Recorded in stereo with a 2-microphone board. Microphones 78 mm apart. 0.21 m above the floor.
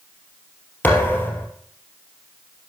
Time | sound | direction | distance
0.8 | a thud | 25° left (ahead or behind) | 2.5 m